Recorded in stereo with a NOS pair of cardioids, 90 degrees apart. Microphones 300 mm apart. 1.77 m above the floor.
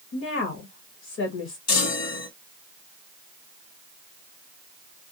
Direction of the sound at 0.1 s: 60° left.